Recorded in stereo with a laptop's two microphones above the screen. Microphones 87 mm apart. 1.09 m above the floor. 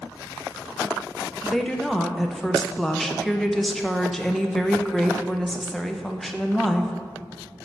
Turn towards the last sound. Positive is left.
turn(degrees=5)  # may be behind; listen again after turning